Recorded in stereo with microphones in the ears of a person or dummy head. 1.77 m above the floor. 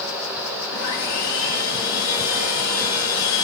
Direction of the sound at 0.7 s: 40° left (ahead or behind).